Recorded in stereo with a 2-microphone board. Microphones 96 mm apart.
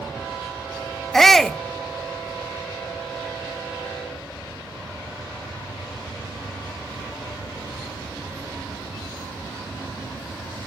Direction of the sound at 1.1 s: 5° left (ahead or behind).